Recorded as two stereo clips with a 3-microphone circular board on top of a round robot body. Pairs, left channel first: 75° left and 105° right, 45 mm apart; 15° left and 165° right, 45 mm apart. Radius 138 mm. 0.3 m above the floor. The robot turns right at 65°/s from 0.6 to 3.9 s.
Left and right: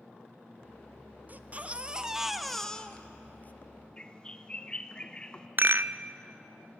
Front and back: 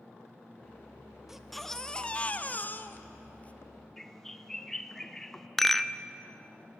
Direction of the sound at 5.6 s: 70° right.